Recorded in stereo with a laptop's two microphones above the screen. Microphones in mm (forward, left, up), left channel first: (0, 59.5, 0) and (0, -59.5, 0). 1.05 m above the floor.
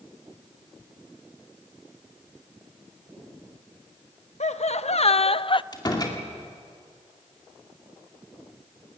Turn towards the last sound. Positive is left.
turn(degrees=35)  # may be behind; listen again after turning